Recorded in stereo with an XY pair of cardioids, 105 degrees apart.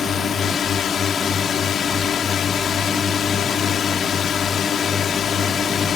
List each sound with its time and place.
0.0 s a drone: 50° left